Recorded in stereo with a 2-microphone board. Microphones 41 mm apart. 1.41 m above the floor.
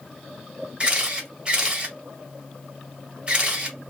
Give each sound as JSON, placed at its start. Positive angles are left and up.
{"t": 0.8, "sound": "a camera shutter", "side_deg": -25, "distance_m": 1.0}